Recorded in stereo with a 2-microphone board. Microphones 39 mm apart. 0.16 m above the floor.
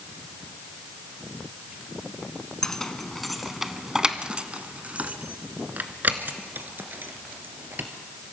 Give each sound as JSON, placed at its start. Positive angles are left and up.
{"t": 2.6, "sound": "keys jangling", "side_deg": 15, "distance_m": 1.2}